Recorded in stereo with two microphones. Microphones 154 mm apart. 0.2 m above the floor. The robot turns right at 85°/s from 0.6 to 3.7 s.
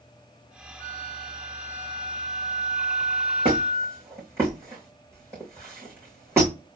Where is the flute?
100° left, 3.5 m; by 4.0 s 10° right, 3.5 m.